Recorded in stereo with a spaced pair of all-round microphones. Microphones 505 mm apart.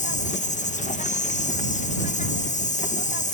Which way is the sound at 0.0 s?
15° left (ahead or behind).